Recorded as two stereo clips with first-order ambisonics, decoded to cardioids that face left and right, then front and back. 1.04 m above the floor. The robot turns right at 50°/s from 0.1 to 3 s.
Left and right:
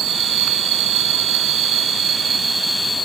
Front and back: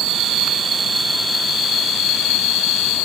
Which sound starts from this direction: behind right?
An insect, at 0.0 s.